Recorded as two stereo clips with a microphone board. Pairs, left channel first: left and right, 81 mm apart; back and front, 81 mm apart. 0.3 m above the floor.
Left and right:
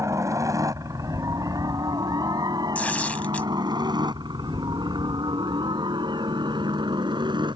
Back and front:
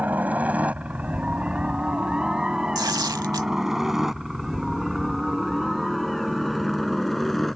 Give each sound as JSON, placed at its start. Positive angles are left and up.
{"t": 0.0, "sound": "a helicopter", "azimuth_deg": -60}
{"t": 2.8, "sound": "tearing paper", "azimuth_deg": 20}